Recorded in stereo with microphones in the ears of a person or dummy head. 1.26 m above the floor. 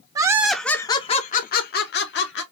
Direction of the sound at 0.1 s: 20° right (ahead or behind).